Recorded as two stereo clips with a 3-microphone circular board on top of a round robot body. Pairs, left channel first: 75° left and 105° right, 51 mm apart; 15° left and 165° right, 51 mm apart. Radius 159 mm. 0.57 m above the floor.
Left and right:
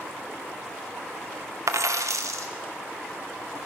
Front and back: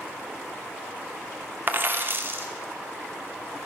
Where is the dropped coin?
115° right, 0.7 m.